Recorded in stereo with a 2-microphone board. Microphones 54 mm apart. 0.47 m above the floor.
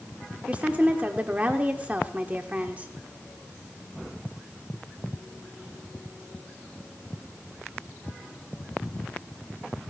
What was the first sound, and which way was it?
A woman speaking, 25° right (ahead or behind).